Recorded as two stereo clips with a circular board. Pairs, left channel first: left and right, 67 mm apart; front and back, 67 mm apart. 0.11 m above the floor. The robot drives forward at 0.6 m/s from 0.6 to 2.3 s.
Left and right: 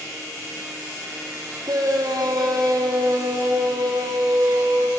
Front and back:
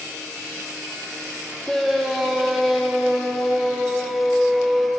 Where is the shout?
85° right, 4 m; by 4.9 s 90° right, 4 m.